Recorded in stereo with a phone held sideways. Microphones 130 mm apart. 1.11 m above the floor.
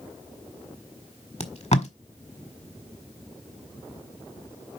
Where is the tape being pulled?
55° left (ahead or behind), 1.4 m.